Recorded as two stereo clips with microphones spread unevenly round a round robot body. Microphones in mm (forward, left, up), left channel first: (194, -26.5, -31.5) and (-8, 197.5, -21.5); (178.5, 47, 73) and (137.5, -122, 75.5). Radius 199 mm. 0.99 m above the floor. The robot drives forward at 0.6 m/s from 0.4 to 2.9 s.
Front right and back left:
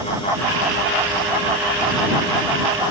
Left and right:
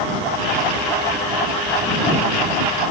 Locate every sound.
Only background noise.